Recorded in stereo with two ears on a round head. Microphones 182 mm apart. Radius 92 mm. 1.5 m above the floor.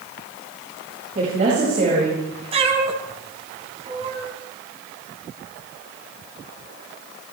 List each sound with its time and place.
1.1 s a woman speaking: 35° right (ahead or behind), 8 m; by 2.4 s 45° right (ahead or behind), 9 m
2.5 s a cat meowing: 30° right (ahead or behind), 3.5 m